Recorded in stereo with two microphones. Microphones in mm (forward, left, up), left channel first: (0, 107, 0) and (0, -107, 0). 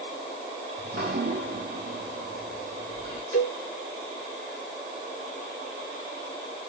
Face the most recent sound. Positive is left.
turn(degrees=70)  # may be behind; listen again after turning